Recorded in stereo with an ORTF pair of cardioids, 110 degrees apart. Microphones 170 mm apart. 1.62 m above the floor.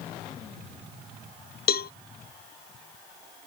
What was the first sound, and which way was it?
A cowbell, 70° left.